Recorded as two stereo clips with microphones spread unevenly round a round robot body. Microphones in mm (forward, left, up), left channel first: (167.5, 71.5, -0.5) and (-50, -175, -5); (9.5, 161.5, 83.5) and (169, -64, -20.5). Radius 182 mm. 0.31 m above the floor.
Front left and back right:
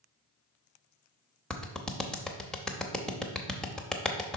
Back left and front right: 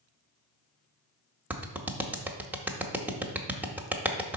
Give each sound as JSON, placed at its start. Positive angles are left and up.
{"t": 1.5, "sound": "a clap", "azimuth_deg": -40, "distance_m": 0.7}